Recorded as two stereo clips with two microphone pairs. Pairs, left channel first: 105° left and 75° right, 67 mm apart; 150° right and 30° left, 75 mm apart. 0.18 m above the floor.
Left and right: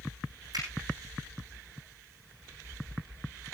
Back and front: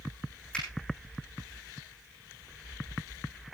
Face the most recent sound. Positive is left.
turn(degrees=-70)